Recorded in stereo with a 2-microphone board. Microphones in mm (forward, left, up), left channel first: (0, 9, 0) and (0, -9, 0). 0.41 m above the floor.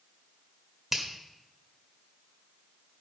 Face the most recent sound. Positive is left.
turn(degrees=-15)  # may be behind; listen again after turning